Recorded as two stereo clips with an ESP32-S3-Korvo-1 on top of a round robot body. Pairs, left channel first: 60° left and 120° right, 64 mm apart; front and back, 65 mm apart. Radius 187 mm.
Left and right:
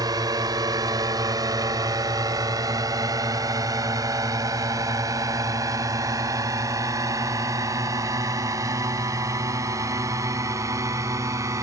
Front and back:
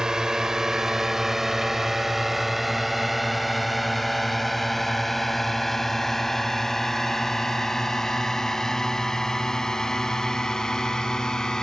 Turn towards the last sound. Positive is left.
turn(degrees=-80)